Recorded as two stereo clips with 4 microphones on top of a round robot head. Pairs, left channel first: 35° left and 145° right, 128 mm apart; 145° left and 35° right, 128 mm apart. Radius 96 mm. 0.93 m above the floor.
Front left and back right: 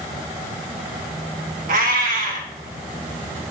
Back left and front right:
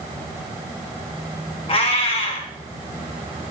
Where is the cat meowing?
165° right, 2 m.